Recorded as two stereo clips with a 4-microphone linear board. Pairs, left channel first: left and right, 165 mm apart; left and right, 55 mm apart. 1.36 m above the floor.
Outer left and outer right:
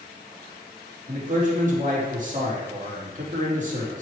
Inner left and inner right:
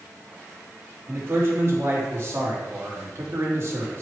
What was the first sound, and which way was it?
A man speaking, 50° right (ahead or behind).